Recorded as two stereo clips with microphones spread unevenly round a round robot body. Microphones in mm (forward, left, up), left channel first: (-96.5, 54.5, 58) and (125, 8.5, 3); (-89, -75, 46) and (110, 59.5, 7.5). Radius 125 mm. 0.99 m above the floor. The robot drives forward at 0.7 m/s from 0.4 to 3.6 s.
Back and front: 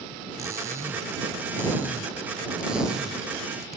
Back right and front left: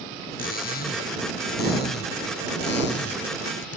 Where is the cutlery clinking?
90° right; by 3.8 s 100° right.